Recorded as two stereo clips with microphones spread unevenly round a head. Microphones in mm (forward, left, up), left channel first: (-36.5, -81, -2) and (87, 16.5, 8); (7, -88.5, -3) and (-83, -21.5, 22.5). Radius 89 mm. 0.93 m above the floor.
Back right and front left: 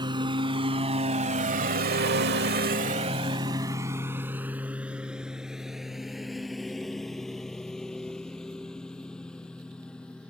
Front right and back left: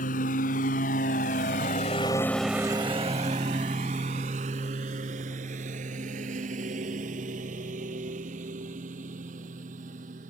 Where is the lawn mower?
20° right; by 10.3 s 135° left.